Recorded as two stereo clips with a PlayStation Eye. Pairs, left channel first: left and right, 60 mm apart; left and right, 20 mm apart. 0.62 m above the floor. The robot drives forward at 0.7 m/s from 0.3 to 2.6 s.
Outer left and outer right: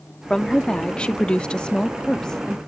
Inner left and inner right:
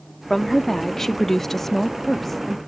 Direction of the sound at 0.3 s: 10° left (ahead or behind).